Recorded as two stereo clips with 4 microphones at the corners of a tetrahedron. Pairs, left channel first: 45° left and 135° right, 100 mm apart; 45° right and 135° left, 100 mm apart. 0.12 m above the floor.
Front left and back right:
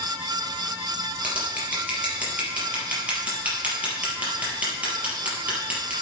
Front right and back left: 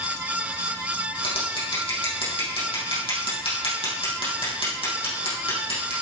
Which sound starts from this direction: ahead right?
Scissors, at 1.2 s.